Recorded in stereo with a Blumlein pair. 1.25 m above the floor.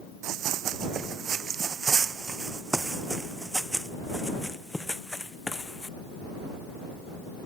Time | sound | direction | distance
0.2 | running footsteps | 35° right | ?